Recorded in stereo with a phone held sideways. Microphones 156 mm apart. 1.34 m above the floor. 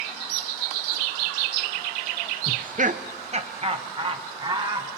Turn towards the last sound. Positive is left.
turn(degrees=-30)  # may be behind; listen again after turning